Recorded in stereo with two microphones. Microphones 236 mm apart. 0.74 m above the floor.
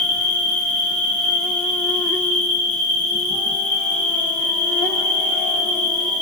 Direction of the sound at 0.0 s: 35° left (ahead or behind).